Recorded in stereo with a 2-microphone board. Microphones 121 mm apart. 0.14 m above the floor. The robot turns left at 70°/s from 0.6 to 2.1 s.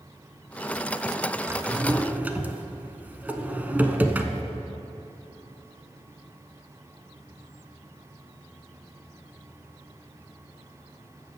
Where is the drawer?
20° right (ahead or behind), 0.7 m; by 4.4 s 15° right (ahead or behind), 0.7 m.